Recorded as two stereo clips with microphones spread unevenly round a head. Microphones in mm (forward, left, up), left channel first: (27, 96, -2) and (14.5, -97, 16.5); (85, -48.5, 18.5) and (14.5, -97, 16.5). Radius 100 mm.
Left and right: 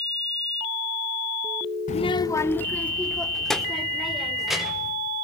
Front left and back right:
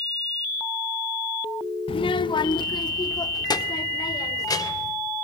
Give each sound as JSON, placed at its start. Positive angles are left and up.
{"t": 1.9, "sound": "a child speaking", "azimuth_deg": 35, "distance_m": 0.5}